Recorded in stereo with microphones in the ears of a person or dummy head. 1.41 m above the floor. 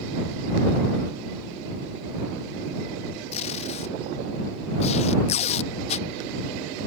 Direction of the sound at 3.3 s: 35° left (ahead or behind).